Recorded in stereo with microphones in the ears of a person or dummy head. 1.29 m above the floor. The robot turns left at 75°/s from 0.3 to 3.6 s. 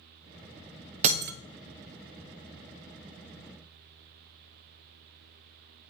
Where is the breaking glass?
40° right (ahead or behind), 0.9 m; by 1.3 s 55° right (ahead or behind), 0.9 m.